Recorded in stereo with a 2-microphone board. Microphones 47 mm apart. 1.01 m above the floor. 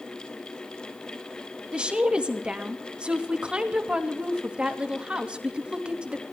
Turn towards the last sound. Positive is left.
turn(degrees=-20)  # may be behind; listen again after turning